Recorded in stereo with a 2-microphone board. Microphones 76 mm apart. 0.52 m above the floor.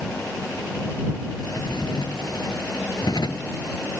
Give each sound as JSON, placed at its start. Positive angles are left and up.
{"t": 1.4, "sound": "a drawer", "side_deg": 60}